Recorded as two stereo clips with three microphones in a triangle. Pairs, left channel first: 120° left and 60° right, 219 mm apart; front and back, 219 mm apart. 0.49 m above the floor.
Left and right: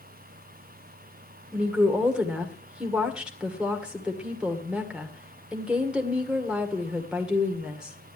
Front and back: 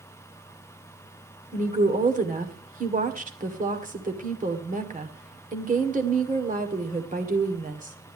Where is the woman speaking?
145° right, 1.8 m.